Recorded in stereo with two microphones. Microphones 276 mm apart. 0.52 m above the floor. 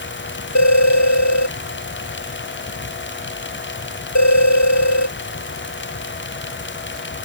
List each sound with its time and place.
0.6 s a phone ringing: 80° left